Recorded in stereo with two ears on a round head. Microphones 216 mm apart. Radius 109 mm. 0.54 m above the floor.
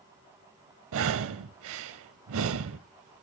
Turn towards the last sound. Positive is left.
turn(degrees=-65)  # may be behind; listen again after turning